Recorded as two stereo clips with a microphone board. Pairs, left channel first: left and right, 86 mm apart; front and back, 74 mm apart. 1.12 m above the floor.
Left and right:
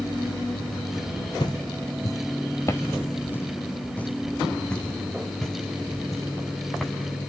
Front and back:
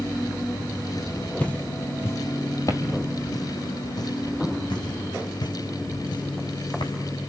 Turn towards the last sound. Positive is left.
turn(degrees=0)